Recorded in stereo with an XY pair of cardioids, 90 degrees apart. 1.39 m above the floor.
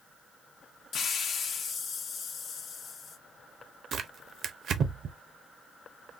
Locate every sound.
0.9 s a hiss: 65° left, 0.7 m
3.9 s tearing paper: 65° right, 0.6 m